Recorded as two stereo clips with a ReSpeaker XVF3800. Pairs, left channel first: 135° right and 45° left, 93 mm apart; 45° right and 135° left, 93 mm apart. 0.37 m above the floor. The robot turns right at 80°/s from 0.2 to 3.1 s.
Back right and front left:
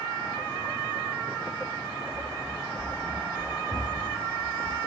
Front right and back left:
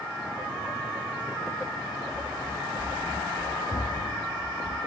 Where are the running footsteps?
25° right, 3 m; by 4.8 s 20° right, 3.5 m.